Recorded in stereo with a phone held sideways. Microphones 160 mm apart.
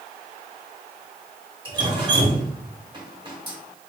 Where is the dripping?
30° right (ahead or behind), 1.0 m.